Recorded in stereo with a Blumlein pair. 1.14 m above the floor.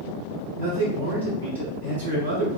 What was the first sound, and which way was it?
A man speaking, 65° right.